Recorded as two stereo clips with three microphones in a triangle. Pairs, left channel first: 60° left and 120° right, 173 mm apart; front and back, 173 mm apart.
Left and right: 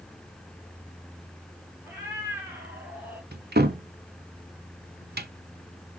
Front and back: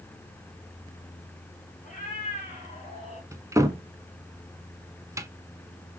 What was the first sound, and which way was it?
A cat meowing, 40° right.